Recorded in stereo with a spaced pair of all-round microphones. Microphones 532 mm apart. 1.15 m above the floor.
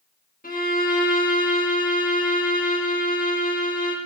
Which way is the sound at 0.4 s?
15° left (ahead or behind).